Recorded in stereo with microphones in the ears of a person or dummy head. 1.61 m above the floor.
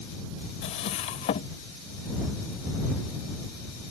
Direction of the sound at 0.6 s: 40° left (ahead or behind).